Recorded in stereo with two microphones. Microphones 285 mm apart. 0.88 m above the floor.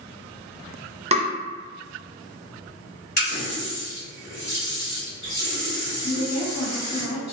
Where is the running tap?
75° left (ahead or behind), 1.5 m.